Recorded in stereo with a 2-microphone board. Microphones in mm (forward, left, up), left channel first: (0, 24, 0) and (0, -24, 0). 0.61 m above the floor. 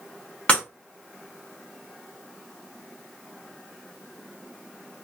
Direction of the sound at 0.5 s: 25° left (ahead or behind).